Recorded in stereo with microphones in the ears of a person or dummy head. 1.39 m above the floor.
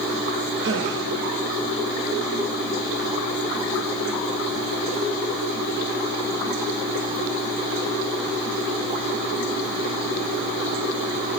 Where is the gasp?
65° right (ahead or behind), 1.3 m.